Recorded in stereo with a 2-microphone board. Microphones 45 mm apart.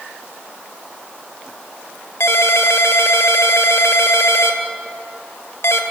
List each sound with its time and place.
2.2 s a ringtone: 75° left (ahead or behind), 1.7 m